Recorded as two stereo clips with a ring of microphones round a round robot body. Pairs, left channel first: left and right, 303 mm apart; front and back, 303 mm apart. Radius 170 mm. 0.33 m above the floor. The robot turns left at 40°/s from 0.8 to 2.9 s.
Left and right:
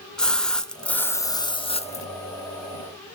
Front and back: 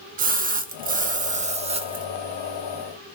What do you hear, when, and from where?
0.2 s a splash: 175° left, 0.5 m; by 2.1 s 125° left, 0.5 m